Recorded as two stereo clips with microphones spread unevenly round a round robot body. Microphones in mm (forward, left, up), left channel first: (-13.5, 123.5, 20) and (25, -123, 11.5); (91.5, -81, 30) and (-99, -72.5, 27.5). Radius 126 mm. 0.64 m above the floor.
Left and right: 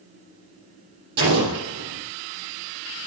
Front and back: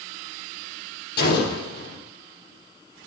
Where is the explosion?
30° right, 6.5 m.